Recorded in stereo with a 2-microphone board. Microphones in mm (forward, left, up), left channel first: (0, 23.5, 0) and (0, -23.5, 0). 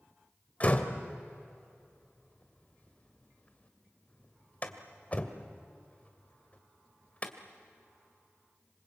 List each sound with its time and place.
0.6 s a door slam: 30° left (ahead or behind), 1.8 m